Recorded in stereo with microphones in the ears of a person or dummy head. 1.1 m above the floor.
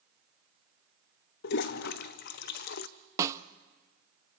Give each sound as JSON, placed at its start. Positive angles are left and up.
{"t": 1.4, "sound": "a toilet flushing", "side_deg": 60, "distance_m": 0.6}
{"t": 3.2, "sound": "a snare drum", "side_deg": -20, "distance_m": 0.5}